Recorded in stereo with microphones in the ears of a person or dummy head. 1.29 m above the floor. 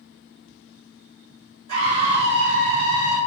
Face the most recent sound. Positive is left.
turn(degrees=-20)  # may be behind; listen again after turning